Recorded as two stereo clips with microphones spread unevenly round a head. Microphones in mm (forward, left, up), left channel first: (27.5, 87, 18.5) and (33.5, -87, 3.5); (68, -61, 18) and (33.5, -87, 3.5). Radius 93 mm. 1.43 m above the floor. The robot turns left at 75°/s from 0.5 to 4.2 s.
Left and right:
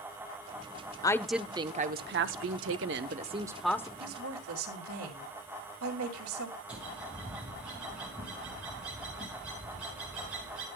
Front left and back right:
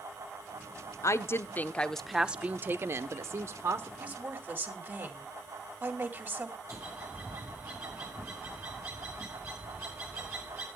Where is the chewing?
No chewing in this recording.